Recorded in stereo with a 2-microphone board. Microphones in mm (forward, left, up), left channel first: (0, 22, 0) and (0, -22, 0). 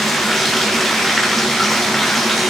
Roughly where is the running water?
Centre.